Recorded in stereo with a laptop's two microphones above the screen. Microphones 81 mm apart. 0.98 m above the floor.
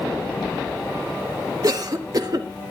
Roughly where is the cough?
Right.